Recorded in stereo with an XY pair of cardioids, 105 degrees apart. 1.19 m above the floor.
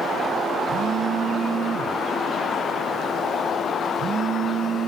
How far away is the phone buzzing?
About 2 m.